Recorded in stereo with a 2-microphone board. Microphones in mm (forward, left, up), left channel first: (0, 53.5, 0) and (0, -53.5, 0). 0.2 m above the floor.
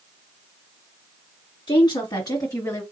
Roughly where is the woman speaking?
Left.